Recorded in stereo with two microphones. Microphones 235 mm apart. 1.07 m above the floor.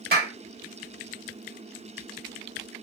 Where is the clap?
45° right (ahead or behind), 1.2 m.